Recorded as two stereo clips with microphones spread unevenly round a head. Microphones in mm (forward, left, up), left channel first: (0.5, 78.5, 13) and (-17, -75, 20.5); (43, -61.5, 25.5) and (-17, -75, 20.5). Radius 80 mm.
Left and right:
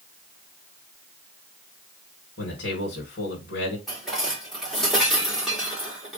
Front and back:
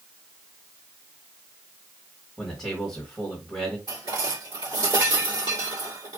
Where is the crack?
I don't hear a crack.